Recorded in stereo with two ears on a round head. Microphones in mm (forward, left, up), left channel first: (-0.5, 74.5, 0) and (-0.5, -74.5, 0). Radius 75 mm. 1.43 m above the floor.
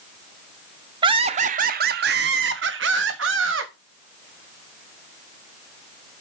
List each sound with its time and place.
1.0 s laughter: 25° right (ahead or behind), 0.8 m; by 3.7 s 85° right, 1.9 m